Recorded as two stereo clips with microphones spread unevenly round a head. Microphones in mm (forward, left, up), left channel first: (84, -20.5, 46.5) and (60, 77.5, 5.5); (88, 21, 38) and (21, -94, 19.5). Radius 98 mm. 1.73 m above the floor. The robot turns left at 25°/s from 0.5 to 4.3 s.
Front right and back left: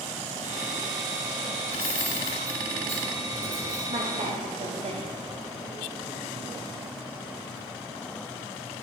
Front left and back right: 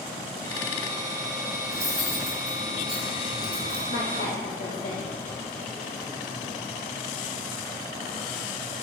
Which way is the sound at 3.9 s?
80° left.